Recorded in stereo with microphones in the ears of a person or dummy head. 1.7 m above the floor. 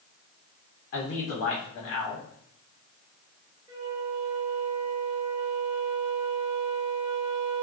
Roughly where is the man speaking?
Left.